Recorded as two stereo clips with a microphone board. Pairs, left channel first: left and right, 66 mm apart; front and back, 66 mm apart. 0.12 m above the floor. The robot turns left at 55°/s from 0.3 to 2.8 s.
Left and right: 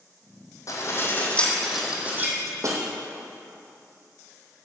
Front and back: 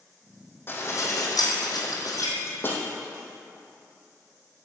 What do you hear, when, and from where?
0.7 s dishes clattering: 55° left, 3 m; by 2.8 s 60° right, 3 m